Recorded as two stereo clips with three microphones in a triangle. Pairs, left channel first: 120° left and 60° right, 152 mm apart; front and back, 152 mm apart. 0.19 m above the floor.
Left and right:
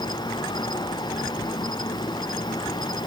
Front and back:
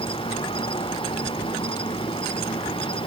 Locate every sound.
0.0 s an insect: 55° left